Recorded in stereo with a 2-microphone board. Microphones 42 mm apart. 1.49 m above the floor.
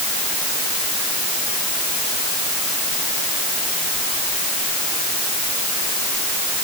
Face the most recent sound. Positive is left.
No sound to turn to.